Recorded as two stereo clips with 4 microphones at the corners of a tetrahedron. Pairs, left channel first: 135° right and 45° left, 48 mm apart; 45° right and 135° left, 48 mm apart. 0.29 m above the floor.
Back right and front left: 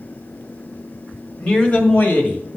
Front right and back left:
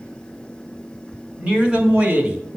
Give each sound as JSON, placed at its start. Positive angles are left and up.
{"t": 1.4, "sound": "a man speaking", "azimuth_deg": 175, "distance_m": 1.4}